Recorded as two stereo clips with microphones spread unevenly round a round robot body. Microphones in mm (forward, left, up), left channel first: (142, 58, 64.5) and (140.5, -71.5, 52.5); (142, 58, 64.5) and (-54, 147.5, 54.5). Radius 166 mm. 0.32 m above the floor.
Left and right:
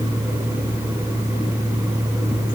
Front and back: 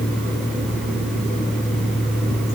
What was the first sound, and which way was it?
Only background noise.